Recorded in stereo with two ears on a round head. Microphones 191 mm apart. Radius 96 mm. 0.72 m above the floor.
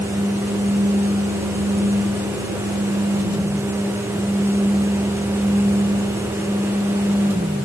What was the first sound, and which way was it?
Only background noise.